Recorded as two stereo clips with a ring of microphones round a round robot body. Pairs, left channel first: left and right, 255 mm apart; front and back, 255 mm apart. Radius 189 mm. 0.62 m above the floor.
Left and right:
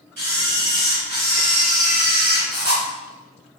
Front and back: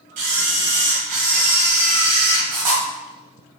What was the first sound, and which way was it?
A camera shutter, 150° right.